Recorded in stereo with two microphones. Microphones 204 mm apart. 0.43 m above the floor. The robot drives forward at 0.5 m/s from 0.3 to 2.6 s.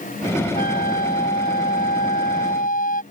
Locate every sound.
0.6 s a flute: 45° left (ahead or behind)